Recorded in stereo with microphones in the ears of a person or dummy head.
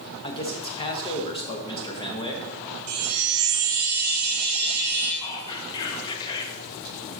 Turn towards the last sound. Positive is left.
turn(degrees=25)  # may be behind; listen again after turning